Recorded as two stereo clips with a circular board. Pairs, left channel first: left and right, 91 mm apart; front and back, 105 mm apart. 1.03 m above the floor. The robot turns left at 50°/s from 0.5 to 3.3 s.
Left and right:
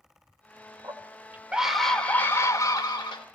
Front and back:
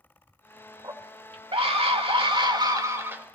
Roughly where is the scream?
Behind right.